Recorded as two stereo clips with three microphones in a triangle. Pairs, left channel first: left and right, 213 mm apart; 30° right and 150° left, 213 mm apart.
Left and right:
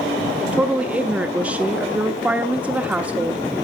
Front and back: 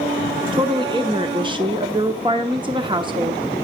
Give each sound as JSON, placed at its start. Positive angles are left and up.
{"t": 0.5, "sound": "a woman speaking", "azimuth_deg": -165, "distance_m": 0.8}